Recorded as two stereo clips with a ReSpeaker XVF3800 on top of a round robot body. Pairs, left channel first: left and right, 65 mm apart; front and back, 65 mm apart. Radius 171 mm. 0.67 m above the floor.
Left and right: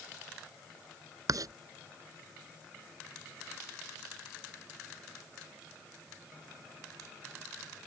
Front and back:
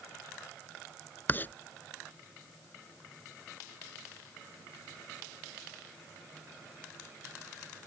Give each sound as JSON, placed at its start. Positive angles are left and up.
{"t": 1.3, "sound": "writing", "azimuth_deg": -60}